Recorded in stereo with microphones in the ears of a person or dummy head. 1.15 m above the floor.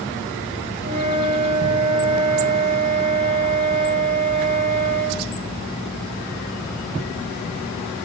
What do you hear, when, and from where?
0.8 s a flute: 50° right (ahead or behind), 1.8 m